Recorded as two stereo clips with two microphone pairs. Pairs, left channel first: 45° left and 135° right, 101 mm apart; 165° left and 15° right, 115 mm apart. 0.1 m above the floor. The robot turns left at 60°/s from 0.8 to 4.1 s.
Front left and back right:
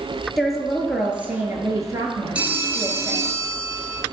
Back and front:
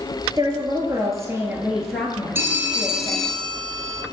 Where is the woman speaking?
40° right, 1.5 m; by 3.4 s 165° left, 1.5 m.